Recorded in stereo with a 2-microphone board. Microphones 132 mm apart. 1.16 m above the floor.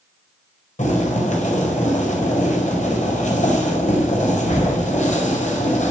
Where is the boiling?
65° left (ahead or behind), 5 m.